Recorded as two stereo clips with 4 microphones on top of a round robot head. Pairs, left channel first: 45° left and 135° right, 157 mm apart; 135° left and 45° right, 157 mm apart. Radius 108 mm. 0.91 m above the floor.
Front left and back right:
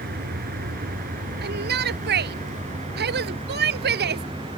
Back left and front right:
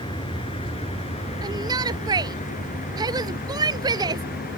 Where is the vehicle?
165° right; by 4.6 s 165° left.